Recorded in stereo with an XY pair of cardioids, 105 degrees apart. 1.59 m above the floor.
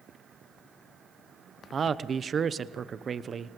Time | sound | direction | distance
1.7 | a man speaking | 40° right | 0.9 m